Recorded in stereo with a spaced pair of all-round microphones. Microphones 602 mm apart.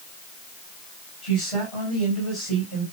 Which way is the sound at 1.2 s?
55° left (ahead or behind).